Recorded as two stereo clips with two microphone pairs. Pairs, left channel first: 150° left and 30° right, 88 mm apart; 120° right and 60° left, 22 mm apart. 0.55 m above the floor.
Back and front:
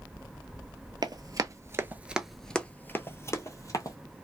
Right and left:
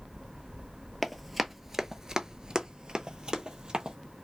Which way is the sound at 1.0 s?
30° right.